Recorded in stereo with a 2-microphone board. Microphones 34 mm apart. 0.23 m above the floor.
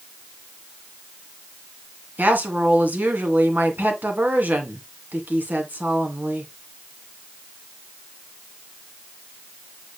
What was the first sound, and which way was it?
A woman speaking, 55° right (ahead or behind).